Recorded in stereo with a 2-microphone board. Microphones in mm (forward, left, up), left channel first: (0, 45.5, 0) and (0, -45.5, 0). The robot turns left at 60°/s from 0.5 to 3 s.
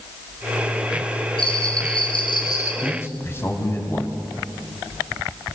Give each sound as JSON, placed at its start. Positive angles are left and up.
{"t": 1.4, "sound": "a bell", "azimuth_deg": 110, "distance_m": 4.0}
{"t": 2.8, "sound": "a man speaking", "side_deg": 15, "distance_m": 3.5}